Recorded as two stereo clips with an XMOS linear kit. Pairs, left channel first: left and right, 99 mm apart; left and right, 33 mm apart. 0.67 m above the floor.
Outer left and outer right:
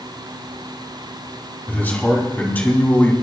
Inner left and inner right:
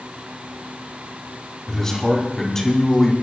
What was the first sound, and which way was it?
A man speaking, 20° left (ahead or behind).